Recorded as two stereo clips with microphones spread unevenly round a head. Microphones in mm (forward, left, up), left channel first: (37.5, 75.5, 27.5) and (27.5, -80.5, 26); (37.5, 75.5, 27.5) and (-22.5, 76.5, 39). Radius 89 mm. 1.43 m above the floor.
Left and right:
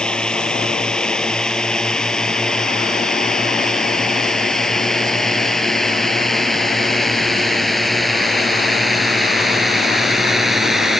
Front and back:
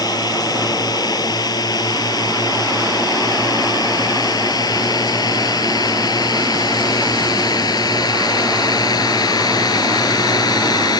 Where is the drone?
Straight ahead; by 11.0 s 5° right.